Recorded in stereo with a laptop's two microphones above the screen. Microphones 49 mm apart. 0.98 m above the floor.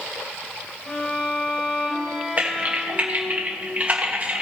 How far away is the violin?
About 2.5 m.